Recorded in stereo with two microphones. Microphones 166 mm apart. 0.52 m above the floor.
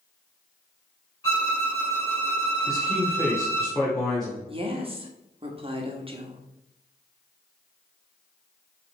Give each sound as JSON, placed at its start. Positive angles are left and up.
{"t": 1.2, "sound": "a violin", "side_deg": 15, "distance_m": 3.5}
{"t": 2.7, "sound": "a man speaking", "side_deg": 5, "distance_m": 1.8}
{"t": 4.5, "sound": "a woman speaking", "side_deg": -35, "distance_m": 1.3}